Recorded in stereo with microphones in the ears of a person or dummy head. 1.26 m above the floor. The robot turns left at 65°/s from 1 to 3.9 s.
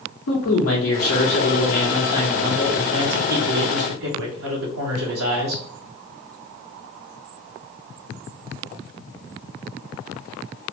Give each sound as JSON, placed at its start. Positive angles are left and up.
{"t": 0.3, "sound": "a man speaking", "azimuth_deg": 95, "distance_m": 0.9}